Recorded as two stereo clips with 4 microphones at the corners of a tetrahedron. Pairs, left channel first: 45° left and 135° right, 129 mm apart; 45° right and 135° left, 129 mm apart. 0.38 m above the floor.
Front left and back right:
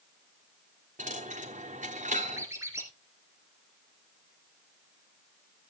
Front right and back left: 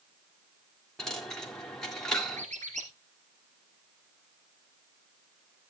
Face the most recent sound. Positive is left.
turn(degrees=155)